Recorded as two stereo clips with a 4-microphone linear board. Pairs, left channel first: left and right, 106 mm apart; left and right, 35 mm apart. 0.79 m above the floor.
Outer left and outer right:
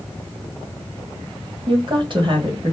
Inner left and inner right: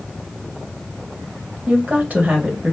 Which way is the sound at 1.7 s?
50° right (ahead or behind).